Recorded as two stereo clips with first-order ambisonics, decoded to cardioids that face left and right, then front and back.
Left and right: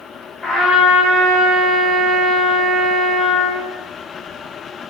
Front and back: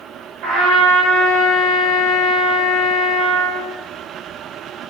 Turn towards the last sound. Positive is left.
turn(degrees=150)